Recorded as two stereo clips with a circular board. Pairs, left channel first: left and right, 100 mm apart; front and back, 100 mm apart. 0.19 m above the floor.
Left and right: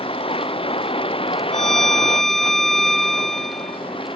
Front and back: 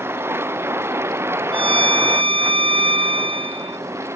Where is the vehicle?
115° left; by 4.2 s 120° left.